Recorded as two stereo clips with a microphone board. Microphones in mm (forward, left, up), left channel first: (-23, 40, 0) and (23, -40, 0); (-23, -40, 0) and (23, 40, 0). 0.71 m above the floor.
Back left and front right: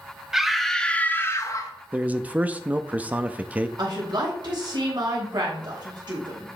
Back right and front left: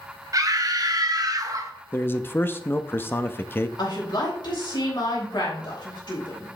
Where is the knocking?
I don't hear knocking.